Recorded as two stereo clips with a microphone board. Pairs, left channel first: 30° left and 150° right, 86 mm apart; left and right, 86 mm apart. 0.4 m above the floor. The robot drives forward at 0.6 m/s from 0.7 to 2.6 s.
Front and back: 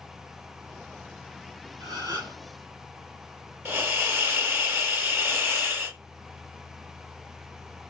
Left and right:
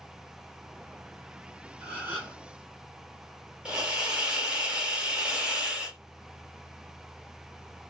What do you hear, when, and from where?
1.8 s a gasp: 155° right, 2.5 m; by 2.4 s 160° right, 2.5 m
3.6 s a hiss: 160° right, 0.8 m